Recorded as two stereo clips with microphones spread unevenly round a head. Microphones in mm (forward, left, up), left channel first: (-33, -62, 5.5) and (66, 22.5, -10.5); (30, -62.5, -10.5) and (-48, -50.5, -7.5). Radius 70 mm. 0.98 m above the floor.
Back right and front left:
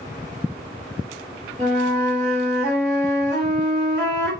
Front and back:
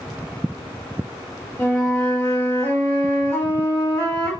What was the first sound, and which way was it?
A flute, 75° left.